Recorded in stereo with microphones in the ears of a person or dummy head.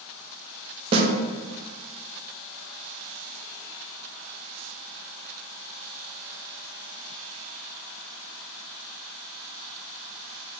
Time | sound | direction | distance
0.9 | a snare drum | 30° right (ahead or behind) | 0.6 m